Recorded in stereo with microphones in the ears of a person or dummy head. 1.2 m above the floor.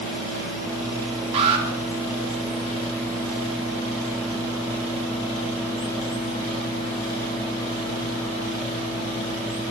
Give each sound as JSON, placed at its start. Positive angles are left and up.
{"t": 1.3, "sound": "an alarm", "side_deg": -35, "distance_m": 3.0}